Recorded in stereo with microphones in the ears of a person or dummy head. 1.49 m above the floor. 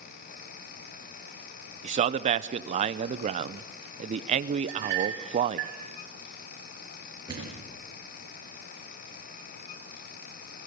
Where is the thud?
20° right (ahead or behind), 6 m.